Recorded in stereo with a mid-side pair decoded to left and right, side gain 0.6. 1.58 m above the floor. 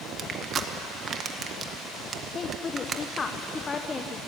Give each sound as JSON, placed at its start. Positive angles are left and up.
{"t": 0.2, "sound": "crushing", "azimuth_deg": -40, "distance_m": 1.8}
{"t": 2.3, "sound": "a woman speaking", "azimuth_deg": 30, "distance_m": 1.2}